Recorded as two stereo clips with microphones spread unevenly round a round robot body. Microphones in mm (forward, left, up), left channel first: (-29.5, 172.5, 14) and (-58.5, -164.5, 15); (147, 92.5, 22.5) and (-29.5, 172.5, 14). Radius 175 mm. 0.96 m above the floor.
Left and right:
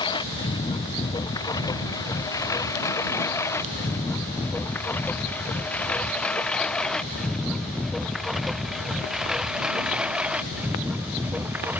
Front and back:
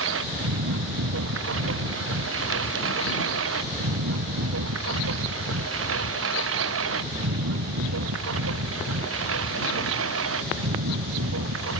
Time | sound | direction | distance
0.0 | a lawn mower | 160° left | ?